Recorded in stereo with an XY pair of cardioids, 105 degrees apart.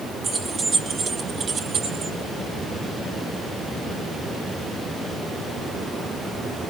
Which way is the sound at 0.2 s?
50° right.